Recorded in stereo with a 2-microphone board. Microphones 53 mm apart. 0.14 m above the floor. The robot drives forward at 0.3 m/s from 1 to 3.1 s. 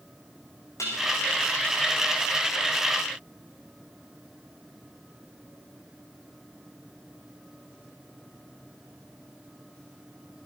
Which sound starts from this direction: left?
Dishes clattering, at 0.8 s.